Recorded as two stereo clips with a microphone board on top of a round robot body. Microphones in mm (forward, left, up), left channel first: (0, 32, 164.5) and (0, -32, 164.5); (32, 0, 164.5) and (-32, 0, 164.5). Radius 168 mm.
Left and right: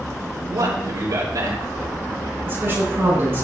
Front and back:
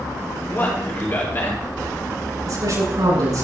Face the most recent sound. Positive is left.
turn(degrees=-150)